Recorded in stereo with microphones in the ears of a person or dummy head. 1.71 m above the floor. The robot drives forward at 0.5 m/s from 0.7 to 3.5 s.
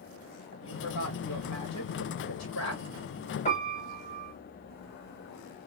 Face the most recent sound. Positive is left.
turn(degrees=30)  # may be behind; listen again after turning